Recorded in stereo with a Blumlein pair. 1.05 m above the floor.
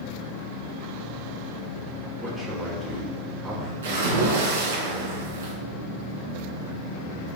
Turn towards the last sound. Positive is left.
turn(degrees=-65)